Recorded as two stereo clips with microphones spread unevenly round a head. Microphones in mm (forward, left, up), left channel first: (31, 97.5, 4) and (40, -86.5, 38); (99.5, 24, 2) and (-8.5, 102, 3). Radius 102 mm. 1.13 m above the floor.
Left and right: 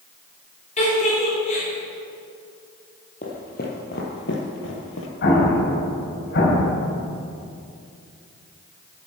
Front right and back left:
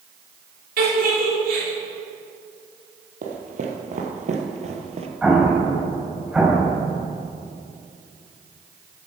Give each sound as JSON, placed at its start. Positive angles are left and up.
{"t": 0.8, "sound": "a giggle", "azimuth_deg": 150, "distance_m": 3.5}
{"t": 3.2, "sound": "footsteps", "azimuth_deg": 150, "distance_m": 2.0}
{"t": 5.2, "sound": "an explosion", "azimuth_deg": 60, "distance_m": 3.0}